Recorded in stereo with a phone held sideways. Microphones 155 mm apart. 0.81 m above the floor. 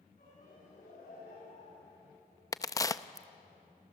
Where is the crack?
20° left (ahead or behind), 0.6 m.